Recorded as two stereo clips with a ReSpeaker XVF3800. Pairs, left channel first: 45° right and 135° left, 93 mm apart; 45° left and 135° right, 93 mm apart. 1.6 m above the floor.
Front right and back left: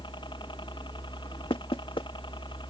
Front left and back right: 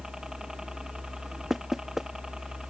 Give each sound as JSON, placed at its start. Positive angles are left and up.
{"t": 0.0, "sound": "a helicopter", "azimuth_deg": -50}
{"t": 1.5, "sound": "knocking", "azimuth_deg": -50}